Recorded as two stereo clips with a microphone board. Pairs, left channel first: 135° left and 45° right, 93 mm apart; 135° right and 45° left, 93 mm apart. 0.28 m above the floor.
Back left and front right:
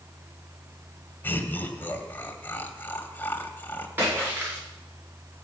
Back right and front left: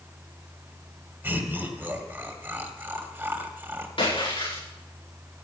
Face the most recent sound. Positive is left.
turn(degrees=-115)